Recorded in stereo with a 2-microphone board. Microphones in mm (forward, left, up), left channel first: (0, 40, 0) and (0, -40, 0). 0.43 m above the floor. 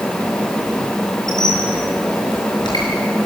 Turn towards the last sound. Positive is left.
turn(degrees=60)  # may be behind; listen again after turning